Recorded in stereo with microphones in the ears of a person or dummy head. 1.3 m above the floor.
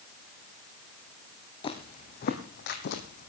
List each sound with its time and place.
1.6 s footsteps: 30° left (ahead or behind), 2.5 m; by 3.3 s 55° left (ahead or behind), 2.5 m